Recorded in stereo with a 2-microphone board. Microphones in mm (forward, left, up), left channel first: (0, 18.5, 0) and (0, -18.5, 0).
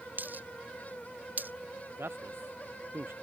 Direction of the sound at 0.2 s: 45° right (ahead or behind).